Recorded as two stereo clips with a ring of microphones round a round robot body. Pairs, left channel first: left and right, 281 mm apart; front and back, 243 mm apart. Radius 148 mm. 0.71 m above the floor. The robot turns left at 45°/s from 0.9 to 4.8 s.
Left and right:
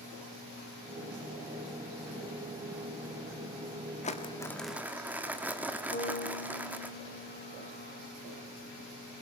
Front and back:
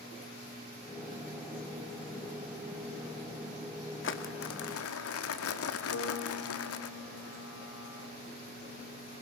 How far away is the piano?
About 2.5 m.